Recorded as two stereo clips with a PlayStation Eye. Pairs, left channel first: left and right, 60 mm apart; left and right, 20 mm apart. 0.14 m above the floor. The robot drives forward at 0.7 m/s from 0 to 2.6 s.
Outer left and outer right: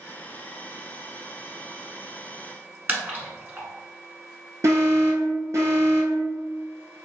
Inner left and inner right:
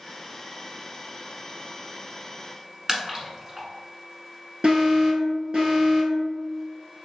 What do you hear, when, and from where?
2.9 s a splash: 25° right (ahead or behind), 1.1 m
4.6 s an alarm: 50° right (ahead or behind), 1.9 m